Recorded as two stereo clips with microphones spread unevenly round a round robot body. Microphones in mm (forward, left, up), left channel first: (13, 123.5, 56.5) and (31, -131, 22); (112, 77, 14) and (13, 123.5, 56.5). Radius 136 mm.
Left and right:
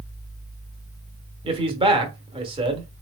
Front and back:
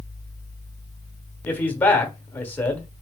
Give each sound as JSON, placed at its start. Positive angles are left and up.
{"t": 1.4, "sound": "a man speaking", "azimuth_deg": -45, "distance_m": 0.9}